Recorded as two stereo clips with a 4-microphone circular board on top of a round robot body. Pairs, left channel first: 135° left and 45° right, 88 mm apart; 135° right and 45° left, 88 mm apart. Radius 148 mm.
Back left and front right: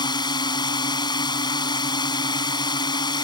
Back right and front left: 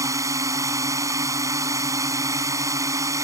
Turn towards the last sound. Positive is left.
turn(degrees=100)